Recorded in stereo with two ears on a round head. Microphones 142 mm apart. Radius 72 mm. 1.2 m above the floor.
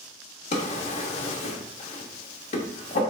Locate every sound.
0.5 s a drawer: 40° left (ahead or behind), 0.9 m